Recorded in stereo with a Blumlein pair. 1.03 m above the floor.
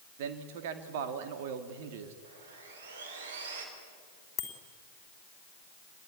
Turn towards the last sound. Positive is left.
turn(degrees=25)